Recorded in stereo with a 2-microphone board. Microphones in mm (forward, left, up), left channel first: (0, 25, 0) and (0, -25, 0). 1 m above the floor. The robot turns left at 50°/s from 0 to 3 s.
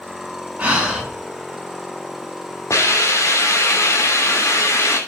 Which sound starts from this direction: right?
Breathing, at 0.6 s.